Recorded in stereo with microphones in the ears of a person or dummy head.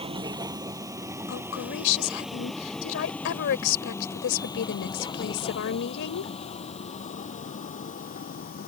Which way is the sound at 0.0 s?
25° right (ahead or behind).